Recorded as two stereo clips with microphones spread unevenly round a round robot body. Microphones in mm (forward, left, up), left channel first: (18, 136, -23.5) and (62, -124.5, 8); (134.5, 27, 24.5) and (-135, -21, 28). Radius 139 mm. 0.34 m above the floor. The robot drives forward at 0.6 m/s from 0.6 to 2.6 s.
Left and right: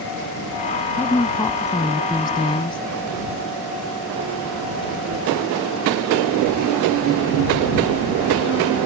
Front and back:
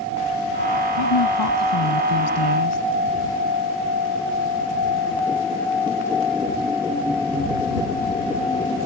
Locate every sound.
1.0 s a woman speaking: 20° left; by 2.8 s 30° left